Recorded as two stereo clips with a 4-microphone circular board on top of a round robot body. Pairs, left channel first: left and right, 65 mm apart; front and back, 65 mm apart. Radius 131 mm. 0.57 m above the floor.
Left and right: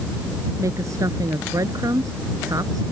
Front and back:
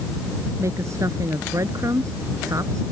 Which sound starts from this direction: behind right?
A woman speaking, at 0.6 s.